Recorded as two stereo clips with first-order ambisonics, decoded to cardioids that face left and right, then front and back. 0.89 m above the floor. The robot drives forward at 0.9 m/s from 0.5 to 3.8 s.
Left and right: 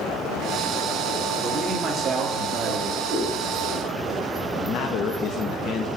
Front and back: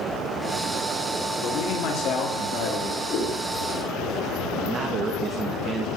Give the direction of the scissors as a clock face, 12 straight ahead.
12 o'clock.